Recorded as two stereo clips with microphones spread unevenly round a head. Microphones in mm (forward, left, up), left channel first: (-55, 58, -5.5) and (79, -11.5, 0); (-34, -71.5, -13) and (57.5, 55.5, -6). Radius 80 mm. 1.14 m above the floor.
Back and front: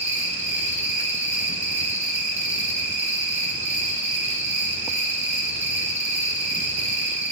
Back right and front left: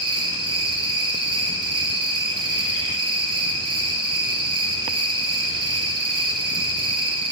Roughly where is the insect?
Ahead.